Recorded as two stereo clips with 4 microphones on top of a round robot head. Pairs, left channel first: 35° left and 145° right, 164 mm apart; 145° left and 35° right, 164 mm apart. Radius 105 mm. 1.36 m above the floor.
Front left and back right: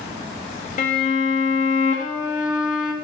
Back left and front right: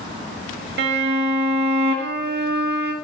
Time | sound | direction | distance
0.8 | a violin | 10° right | 0.5 m